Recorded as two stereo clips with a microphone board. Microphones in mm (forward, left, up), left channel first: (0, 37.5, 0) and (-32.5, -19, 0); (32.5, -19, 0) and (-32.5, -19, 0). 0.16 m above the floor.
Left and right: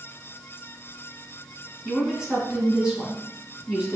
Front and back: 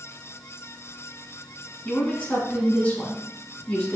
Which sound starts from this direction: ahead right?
A woman speaking, at 1.9 s.